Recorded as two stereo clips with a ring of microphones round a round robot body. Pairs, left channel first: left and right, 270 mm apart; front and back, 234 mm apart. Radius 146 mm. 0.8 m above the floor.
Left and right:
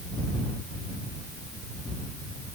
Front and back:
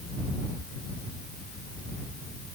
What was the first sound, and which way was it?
Only background noise.